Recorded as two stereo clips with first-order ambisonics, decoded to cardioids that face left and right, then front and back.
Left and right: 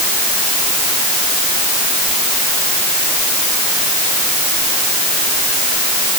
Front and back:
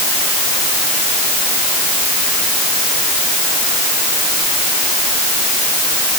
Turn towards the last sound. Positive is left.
No sound to turn to.